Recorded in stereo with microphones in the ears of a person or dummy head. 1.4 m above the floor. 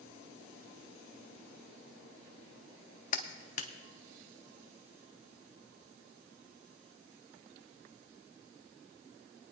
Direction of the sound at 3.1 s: 40° left (ahead or behind).